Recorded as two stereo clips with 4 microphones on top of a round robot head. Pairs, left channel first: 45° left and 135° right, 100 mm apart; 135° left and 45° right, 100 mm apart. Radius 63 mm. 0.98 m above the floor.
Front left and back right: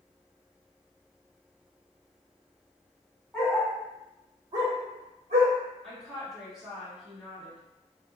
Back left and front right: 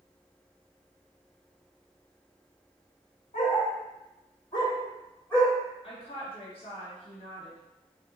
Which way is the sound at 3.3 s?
130° left.